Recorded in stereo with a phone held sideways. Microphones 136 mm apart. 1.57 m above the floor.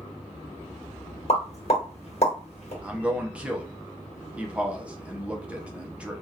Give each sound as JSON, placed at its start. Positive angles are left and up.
{"t": 1.3, "sound": "a pop", "side_deg": 50, "distance_m": 1.2}
{"t": 2.8, "sound": "a man speaking", "side_deg": -10, "distance_m": 0.7}